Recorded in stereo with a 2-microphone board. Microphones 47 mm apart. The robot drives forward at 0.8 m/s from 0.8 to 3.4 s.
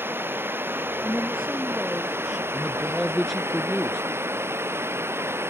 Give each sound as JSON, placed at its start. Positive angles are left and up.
{"t": 0.0, "sound": "running water", "side_deg": -50}
{"t": 1.0, "sound": "a woman speaking", "side_deg": -20}
{"t": 2.5, "sound": "a man speaking", "side_deg": 0}